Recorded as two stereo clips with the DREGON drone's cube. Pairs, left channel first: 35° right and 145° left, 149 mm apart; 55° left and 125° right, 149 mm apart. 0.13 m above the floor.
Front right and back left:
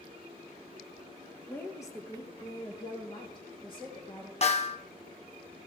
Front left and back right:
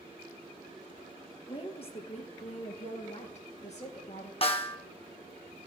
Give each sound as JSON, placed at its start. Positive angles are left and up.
{"t": 1.5, "sound": "a woman speaking", "azimuth_deg": 30, "distance_m": 1.9}
{"t": 4.4, "sound": "a snare drum", "azimuth_deg": 10, "distance_m": 1.8}